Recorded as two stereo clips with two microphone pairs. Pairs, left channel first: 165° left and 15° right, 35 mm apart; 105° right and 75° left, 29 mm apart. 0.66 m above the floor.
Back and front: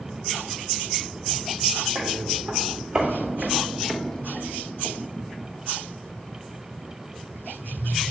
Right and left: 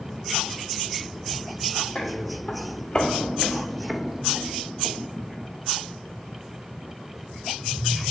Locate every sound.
1.9 s footsteps: 65° right, 1.5 m; by 5.5 s 125° left, 1.4 m